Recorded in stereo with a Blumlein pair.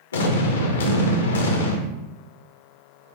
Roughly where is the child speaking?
No child speaking in this recording.